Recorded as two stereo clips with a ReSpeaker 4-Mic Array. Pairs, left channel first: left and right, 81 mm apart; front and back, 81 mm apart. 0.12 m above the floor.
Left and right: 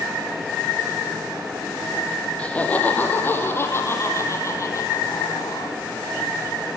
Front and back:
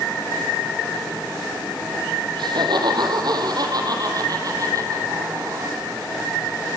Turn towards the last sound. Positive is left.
turn(degrees=125)